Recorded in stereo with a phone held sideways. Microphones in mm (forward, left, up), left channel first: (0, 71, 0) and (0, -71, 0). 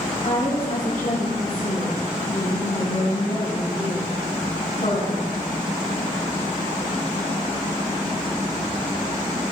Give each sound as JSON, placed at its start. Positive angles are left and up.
{"t": 0.2, "sound": "a woman speaking", "side_deg": 80, "distance_m": 4.5}